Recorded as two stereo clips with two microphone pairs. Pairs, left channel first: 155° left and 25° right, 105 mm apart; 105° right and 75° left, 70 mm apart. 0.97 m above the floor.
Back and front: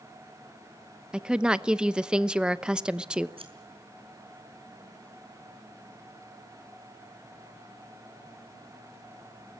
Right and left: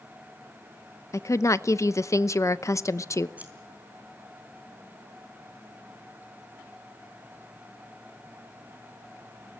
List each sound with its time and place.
1.1 s a woman speaking: 105° right, 0.8 m
3.4 s scissors: 5° left, 4 m